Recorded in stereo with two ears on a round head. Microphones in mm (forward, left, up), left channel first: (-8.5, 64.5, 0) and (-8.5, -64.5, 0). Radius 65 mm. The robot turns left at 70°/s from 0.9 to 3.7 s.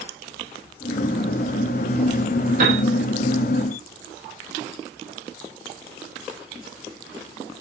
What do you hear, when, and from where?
2.6 s a piano: 50° right (ahead or behind), 3 m; by 2.8 s 65° right (ahead or behind), 3 m